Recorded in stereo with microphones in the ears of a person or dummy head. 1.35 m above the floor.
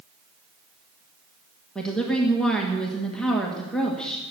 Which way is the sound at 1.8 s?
Centre (ahead or behind).